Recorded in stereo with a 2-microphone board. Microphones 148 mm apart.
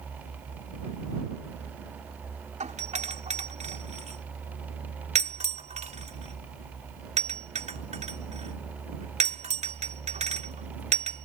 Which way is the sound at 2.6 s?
55° right (ahead or behind).